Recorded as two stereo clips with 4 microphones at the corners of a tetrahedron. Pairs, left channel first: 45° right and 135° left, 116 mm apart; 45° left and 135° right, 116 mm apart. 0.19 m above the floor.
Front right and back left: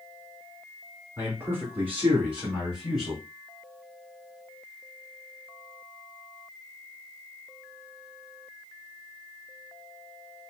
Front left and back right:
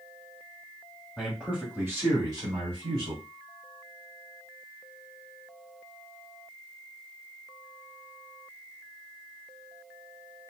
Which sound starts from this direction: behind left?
A man speaking, at 1.2 s.